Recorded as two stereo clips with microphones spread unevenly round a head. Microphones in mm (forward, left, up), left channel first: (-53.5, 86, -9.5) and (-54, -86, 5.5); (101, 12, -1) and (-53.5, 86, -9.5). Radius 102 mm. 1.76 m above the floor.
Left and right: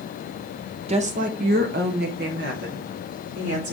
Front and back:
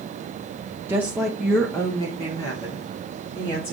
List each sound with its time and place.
0.9 s a woman speaking: 125° right, 0.8 m; by 3.7 s 90° right, 2 m